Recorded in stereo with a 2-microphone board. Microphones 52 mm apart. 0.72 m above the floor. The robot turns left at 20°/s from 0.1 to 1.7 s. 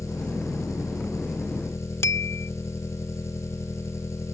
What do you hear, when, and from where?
0.0 s an engine running: 100° left; by 4.3 s 65° left
2.0 s a bell: 55° left (ahead or behind)